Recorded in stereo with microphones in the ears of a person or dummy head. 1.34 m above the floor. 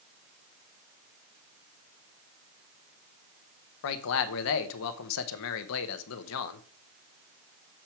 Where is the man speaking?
75° left (ahead or behind), 0.9 m.